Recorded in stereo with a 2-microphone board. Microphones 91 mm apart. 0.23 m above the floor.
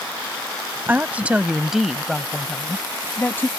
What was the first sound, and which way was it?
A woman speaking, 20° right (ahead or behind).